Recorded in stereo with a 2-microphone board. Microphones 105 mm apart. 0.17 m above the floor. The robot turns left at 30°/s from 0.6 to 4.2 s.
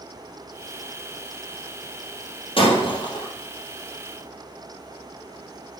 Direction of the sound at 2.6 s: 55° left (ahead or behind).